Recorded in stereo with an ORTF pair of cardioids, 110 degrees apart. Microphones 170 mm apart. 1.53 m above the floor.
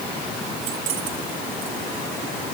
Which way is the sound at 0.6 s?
65° right.